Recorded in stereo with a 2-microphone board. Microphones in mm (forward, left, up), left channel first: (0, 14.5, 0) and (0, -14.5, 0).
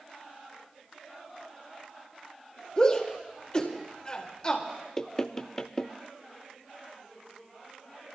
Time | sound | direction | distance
2.8 | a shout | 30° left (ahead or behind) | 1.7 m
5.0 | knocking | 20° left (ahead or behind) | 0.6 m